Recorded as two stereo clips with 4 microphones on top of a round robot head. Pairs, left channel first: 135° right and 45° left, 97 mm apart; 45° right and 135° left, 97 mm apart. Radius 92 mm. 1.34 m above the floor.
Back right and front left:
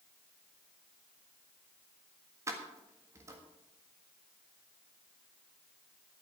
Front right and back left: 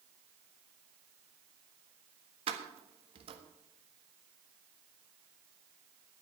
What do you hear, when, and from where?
2.5 s keys jangling: 105° left, 1.5 m